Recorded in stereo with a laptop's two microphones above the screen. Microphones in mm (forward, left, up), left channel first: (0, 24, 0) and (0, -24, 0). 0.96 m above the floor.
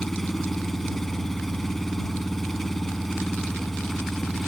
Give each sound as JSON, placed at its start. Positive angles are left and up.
{"t": 0.0, "sound": "an engine running", "side_deg": 10}